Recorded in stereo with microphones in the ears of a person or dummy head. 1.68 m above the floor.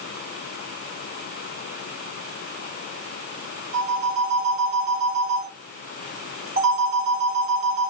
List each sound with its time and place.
3.7 s a phone ringing: 40° right (ahead or behind), 5 m